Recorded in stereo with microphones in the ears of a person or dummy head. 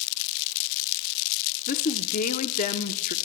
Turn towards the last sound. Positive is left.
turn(degrees=40)  # may be behind; listen again after turning